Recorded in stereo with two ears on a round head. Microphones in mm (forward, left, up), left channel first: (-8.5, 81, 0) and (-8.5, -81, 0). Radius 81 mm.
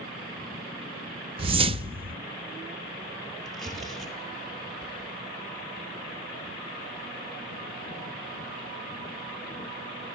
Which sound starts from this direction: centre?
Tearing paper, at 3.5 s.